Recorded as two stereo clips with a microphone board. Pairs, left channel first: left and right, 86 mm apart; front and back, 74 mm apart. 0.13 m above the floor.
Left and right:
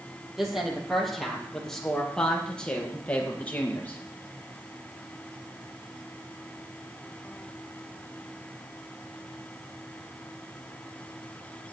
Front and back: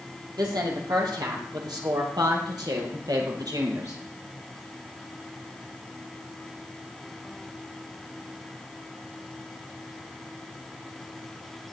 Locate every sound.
0.4 s a woman speaking: 175° right, 4 m; by 4.0 s 155° left, 3 m